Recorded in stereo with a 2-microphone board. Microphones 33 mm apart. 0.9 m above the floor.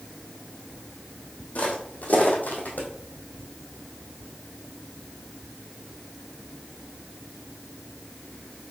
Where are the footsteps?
45° left (ahead or behind), 2 m; by 2.9 s 60° left (ahead or behind), 2 m.